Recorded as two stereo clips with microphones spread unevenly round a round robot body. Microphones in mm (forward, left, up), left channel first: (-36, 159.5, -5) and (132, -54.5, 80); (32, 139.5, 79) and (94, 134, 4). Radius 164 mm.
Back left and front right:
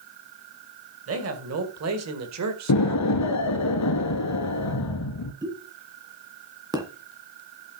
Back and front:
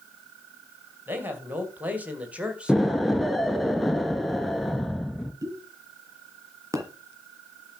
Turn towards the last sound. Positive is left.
turn(degrees=25)